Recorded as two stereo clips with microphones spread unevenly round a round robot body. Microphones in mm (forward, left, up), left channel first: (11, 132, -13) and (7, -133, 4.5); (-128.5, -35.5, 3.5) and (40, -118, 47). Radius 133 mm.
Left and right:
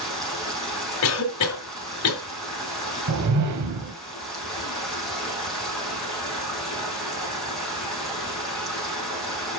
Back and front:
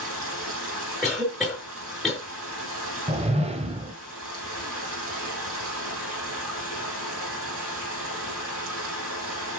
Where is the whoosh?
85° right, 1.5 m.